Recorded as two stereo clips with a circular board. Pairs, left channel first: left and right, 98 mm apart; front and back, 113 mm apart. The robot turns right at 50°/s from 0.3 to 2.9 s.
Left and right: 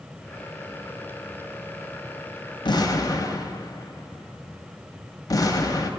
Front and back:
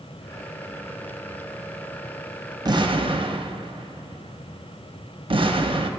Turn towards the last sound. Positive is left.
turn(degrees=140)